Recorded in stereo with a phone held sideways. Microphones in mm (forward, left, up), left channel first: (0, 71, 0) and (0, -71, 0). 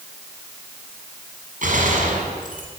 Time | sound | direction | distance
1.6 | a gunshot | 70° right (ahead or behind) | 6 m